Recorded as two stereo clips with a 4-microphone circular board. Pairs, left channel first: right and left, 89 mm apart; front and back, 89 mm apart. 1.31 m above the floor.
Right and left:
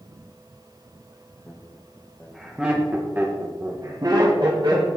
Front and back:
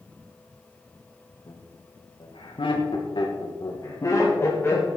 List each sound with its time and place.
1.5 s laughter: 15° right, 2 m; by 4.9 s 65° left, 2 m